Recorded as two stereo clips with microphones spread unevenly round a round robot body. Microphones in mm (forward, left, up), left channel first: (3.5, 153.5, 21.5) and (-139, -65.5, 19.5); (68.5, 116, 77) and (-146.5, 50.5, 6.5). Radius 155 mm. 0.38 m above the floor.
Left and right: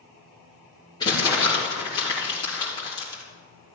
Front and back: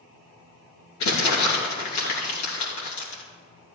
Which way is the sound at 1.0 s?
20° right.